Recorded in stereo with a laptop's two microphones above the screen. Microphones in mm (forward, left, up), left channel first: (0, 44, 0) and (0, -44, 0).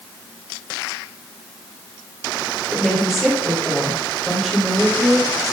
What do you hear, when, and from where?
2.7 s a woman speaking: centre (ahead or behind), 4.5 m